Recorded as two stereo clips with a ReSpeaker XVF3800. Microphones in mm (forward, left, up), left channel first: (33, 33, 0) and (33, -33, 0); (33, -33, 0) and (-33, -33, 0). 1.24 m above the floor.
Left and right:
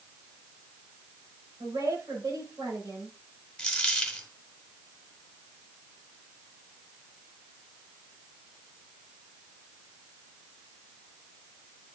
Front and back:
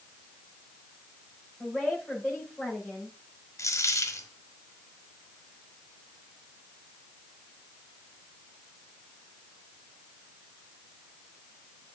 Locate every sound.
1.6 s a woman speaking: 95° right, 5.5 m
3.6 s a dropped coin: 15° left, 1.3 m